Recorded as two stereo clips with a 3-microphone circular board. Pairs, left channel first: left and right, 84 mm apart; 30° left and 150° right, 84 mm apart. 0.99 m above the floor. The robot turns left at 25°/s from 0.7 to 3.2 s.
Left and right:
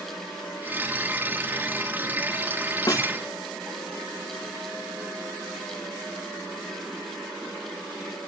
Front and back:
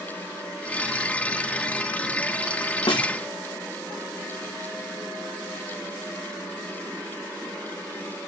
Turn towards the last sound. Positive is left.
turn(degrees=40)